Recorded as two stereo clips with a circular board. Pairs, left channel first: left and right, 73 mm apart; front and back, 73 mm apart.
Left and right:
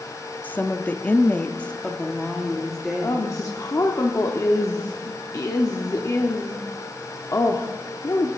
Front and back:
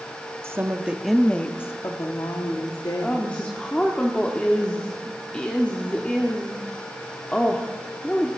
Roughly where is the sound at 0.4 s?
Behind left.